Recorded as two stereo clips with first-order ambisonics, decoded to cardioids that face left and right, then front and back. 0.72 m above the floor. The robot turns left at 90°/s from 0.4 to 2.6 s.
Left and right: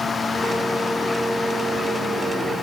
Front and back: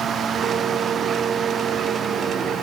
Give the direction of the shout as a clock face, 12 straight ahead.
No shout in this recording.